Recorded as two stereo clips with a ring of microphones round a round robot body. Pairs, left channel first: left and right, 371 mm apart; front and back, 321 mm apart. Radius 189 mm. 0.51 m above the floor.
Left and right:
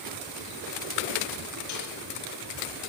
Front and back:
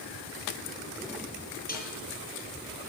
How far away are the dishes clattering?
About 9 m.